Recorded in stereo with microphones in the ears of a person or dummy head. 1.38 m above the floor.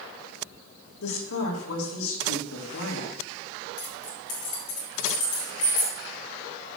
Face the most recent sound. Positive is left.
turn(degrees=45)  # may be behind; listen again after turning